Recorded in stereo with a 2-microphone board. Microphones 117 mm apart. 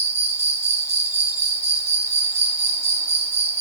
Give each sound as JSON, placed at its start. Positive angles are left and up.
{"t": 0.0, "sound": "an insect", "side_deg": -65, "distance_m": 1.2}